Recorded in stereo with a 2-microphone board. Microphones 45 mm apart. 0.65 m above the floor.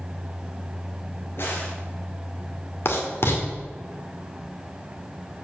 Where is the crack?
60° left (ahead or behind), 3.5 m.